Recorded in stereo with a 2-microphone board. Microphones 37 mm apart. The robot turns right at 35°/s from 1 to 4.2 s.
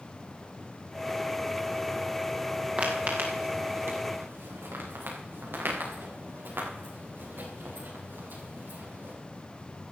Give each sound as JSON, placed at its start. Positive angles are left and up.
{"t": 2.8, "sound": "footsteps", "side_deg": -35, "distance_m": 4.0}